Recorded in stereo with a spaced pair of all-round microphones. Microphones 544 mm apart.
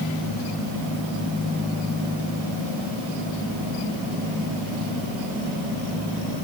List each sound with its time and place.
Only background noise.